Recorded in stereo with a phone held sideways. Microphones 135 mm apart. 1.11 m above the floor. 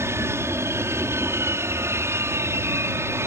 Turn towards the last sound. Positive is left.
turn(degrees=-20)  # may be behind; listen again after turning